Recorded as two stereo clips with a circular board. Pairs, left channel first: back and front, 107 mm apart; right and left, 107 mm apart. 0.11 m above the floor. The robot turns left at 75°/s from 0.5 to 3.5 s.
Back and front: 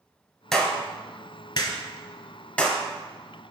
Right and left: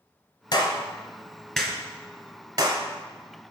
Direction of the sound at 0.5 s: 95° right.